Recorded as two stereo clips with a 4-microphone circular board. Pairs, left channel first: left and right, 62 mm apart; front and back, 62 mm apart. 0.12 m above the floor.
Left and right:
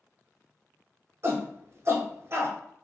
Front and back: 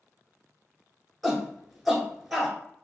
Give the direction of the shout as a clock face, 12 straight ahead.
3 o'clock.